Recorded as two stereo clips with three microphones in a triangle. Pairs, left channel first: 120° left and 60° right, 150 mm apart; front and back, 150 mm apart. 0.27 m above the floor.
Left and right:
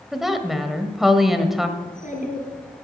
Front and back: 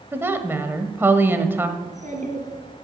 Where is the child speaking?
145° left, 3.5 m.